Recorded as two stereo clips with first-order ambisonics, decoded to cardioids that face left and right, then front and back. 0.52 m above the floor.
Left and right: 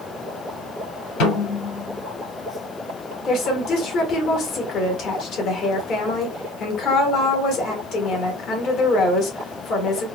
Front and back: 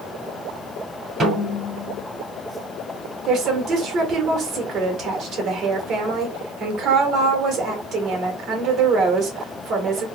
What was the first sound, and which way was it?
A snare drum, 105° left.